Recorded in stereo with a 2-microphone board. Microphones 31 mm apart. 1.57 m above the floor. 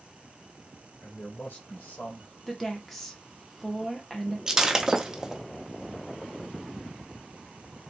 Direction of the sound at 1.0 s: 80° left.